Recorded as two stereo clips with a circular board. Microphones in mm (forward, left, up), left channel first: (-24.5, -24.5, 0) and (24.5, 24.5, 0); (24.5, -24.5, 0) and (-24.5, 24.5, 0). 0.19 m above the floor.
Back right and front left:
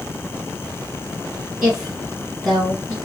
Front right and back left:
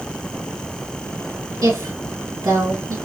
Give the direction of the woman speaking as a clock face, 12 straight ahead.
8 o'clock.